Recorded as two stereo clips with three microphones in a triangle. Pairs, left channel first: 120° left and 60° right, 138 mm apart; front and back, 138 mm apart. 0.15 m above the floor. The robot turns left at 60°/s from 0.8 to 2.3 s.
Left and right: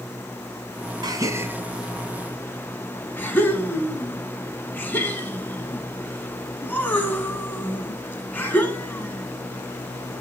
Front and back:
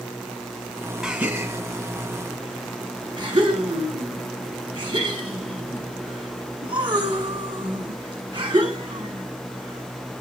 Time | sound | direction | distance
1.0 | a gasp | 95° right | 1.1 m